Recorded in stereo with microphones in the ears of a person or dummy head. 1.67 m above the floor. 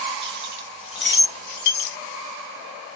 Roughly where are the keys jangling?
Right.